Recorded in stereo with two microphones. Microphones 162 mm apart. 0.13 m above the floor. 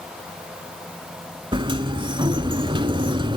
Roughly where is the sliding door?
Right.